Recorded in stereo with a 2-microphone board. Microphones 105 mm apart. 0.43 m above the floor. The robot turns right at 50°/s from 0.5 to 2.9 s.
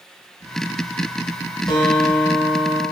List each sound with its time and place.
1.7 s a guitar: 135° left, 0.7 m; by 2.8 s 170° right, 0.7 m